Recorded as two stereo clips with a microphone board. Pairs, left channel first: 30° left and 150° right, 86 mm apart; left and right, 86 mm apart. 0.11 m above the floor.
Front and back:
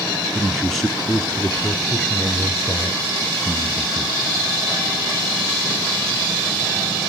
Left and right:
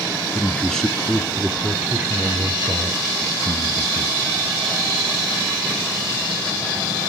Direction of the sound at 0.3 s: 115° left.